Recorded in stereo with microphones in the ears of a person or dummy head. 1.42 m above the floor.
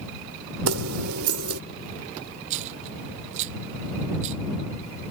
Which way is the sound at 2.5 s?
35° right (ahead or behind).